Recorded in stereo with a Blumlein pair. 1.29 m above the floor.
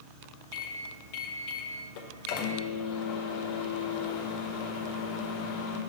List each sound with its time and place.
0.5 s a microwave: 45° left, 0.7 m